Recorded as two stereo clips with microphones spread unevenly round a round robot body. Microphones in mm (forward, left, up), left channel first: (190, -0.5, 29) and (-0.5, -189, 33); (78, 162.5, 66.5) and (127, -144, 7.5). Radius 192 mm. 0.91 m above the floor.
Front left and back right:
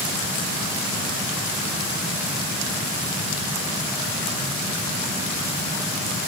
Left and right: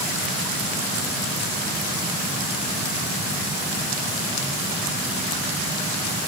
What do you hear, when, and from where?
Only background noise.